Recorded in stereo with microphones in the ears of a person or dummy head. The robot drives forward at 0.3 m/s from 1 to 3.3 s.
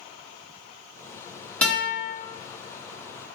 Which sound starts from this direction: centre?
A guitar, at 1.6 s.